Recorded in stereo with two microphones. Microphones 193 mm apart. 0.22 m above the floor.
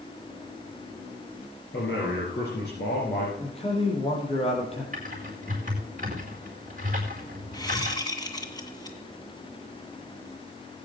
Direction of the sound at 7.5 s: 20° left (ahead or behind).